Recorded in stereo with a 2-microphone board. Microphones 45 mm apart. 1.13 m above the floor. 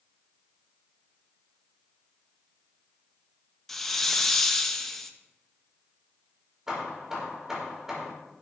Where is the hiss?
10° left (ahead or behind), 1.1 m.